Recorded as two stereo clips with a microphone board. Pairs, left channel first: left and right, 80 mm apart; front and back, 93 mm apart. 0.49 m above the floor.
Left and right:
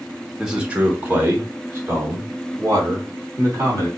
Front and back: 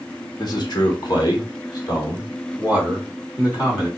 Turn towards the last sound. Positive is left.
turn(degrees=-45)